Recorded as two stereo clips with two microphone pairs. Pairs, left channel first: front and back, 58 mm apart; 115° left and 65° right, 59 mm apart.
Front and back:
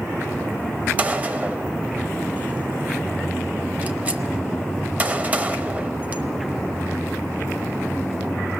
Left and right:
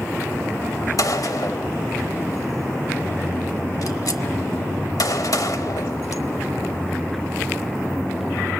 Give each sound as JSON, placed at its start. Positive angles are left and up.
{"t": 1.0, "sound": "a gunshot", "azimuth_deg": 120, "distance_m": 0.9}